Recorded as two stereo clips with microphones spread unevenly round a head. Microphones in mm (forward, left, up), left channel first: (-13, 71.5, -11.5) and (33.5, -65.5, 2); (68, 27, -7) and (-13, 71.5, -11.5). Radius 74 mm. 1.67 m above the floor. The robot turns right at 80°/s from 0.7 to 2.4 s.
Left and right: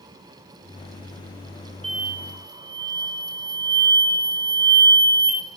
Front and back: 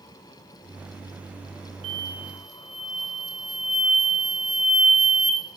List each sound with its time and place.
1.8 s an explosion: 165° right, 1.7 m; by 5.4 s 120° right, 1.7 m